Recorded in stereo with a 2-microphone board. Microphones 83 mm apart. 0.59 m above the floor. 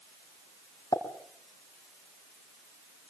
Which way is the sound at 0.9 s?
50° left (ahead or behind).